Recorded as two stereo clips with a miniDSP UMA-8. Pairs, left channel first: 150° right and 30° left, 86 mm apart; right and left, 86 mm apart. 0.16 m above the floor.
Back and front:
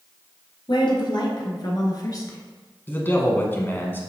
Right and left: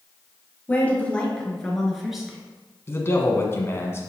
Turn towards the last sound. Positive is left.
turn(degrees=-110)